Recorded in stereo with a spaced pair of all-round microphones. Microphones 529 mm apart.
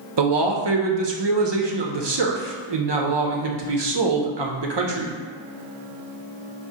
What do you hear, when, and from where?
0.2 s a man speaking: 50° right (ahead or behind), 0.6 m